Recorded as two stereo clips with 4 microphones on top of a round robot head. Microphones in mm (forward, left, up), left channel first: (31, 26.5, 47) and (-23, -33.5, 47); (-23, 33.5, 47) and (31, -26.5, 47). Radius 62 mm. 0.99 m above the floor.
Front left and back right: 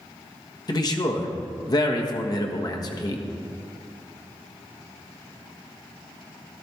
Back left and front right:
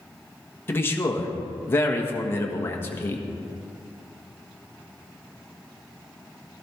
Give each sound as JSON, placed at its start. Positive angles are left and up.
{"t": 0.7, "sound": "a man speaking", "azimuth_deg": 75, "distance_m": 1.5}